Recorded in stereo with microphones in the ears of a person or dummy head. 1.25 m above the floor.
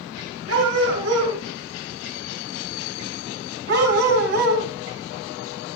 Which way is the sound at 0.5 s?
75° right (ahead or behind).